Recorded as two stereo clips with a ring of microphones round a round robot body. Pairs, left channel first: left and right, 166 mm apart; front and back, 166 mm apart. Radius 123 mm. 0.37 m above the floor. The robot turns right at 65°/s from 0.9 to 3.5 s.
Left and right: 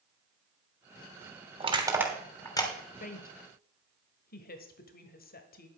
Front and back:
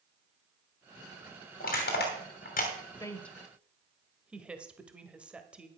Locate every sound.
1.6 s crushing: 40° right, 3 m; by 2.7 s 35° left, 3 m
3.0 s a woman speaking: 65° left, 1.5 m; by 5.7 s 100° left, 1.5 m